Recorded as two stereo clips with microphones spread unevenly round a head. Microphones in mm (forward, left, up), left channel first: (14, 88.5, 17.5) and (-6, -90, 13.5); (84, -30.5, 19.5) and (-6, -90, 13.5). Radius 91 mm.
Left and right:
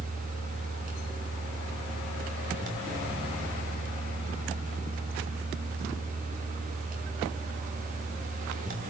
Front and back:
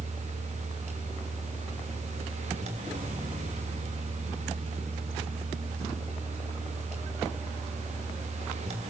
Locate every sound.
0.0 s a fan: 145° right, 3 m